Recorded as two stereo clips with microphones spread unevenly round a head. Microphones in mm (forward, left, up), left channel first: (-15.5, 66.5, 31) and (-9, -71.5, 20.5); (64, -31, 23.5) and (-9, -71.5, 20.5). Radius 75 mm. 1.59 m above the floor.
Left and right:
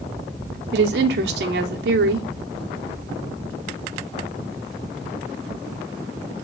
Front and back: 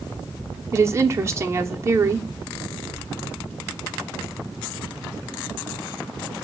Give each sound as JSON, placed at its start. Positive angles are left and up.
{"t": 0.7, "sound": "a woman speaking", "azimuth_deg": -95, "distance_m": 0.8}